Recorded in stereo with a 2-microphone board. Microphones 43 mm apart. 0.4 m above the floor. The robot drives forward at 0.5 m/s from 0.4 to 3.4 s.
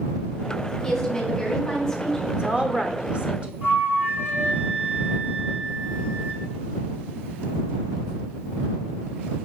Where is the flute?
55° right (ahead or behind), 3.5 m.